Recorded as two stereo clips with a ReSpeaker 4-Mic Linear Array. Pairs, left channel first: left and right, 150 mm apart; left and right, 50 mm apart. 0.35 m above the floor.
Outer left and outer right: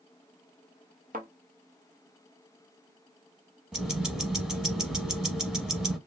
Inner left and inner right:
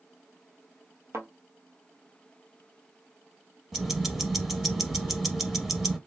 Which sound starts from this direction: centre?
Ticking, at 3.7 s.